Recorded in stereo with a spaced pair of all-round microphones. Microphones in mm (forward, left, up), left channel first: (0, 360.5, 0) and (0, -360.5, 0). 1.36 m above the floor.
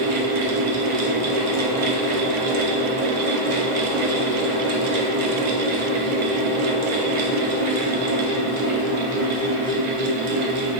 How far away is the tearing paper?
No tearing paper in this recording.